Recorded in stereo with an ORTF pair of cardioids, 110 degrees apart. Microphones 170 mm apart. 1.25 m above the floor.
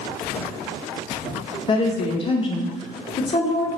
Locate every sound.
1.7 s a woman speaking: 30° left, 0.7 m